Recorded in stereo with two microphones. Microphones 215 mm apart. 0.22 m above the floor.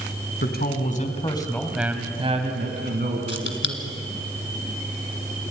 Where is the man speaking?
50° left (ahead or behind), 2 m; by 4.0 s 65° right (ahead or behind), 3.5 m.